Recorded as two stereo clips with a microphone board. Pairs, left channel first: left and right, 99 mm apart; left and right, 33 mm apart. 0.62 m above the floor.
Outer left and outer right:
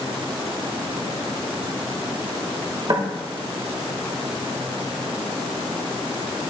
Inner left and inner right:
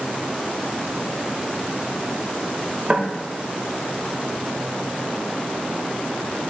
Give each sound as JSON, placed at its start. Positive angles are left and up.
{"t": 2.9, "sound": "knocking", "side_deg": -40, "distance_m": 1.3}